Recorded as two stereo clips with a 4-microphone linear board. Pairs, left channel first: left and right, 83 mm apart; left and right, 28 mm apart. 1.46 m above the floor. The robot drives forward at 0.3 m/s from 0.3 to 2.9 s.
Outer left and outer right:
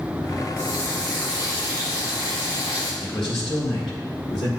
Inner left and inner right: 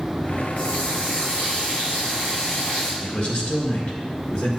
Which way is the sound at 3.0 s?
80° left.